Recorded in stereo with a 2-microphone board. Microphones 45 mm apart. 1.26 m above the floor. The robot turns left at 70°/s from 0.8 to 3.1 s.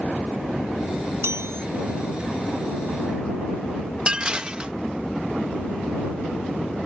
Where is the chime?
85° right; by 1.7 s 115° right.